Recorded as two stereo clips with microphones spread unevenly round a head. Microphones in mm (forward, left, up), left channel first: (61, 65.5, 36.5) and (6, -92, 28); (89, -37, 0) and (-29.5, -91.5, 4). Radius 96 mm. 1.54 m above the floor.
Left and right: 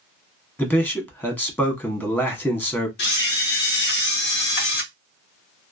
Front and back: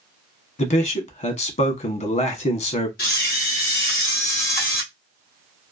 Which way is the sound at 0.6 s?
10° right.